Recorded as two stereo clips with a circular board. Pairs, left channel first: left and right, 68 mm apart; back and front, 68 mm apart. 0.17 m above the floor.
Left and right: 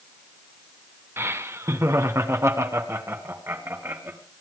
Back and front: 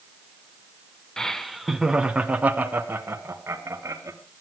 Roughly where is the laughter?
Right.